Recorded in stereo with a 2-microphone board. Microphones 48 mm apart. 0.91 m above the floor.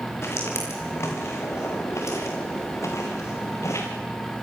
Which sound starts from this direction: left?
Footsteps, at 0.2 s.